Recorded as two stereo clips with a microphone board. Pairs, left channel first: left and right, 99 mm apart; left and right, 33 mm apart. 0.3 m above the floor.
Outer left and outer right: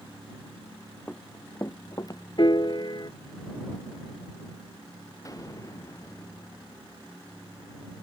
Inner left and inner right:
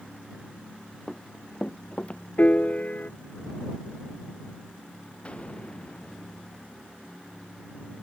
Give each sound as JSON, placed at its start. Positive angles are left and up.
{"t": 1.1, "sound": "running footsteps", "side_deg": 15}
{"t": 2.4, "sound": "a piano", "side_deg": 50}
{"t": 5.2, "sound": "an explosion", "side_deg": 35}